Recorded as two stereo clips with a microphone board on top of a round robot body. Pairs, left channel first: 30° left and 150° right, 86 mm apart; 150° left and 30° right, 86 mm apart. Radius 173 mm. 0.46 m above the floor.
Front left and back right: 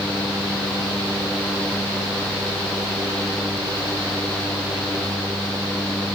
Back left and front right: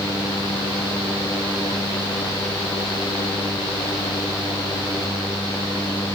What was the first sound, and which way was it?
Only background noise.